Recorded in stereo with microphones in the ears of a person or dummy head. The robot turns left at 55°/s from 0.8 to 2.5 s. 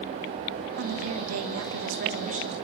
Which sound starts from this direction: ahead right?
A woman speaking, at 0.8 s.